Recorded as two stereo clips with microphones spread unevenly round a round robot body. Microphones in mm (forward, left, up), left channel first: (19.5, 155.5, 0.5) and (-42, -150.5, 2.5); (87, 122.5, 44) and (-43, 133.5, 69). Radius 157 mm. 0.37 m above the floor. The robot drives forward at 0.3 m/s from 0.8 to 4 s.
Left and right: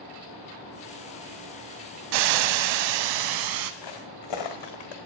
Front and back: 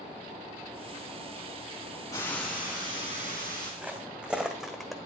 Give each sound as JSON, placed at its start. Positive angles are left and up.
{"t": 2.1, "sound": "frying", "azimuth_deg": -85, "distance_m": 0.5}
{"t": 3.8, "sound": "footsteps", "azimuth_deg": 95, "distance_m": 2.0}